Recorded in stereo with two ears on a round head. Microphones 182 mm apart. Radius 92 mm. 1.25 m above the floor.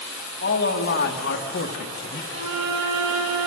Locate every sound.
0.4 s a man speaking: 55° left (ahead or behind), 2 m
2.3 s a violin: 60° right (ahead or behind), 4.5 m